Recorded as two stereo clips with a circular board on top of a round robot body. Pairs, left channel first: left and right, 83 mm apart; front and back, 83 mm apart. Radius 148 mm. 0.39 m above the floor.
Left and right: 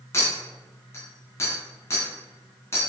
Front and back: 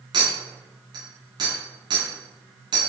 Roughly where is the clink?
Behind left.